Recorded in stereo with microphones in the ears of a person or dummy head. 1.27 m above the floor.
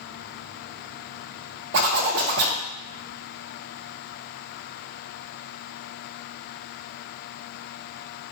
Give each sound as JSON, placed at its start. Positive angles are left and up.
{"t": 1.7, "sound": "a zipper", "side_deg": -60, "distance_m": 0.5}